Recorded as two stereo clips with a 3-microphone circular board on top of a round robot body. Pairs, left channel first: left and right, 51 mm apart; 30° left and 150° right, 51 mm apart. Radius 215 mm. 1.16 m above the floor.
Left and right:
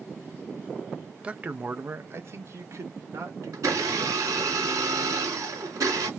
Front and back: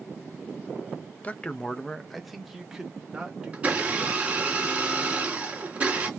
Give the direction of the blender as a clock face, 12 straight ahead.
3 o'clock.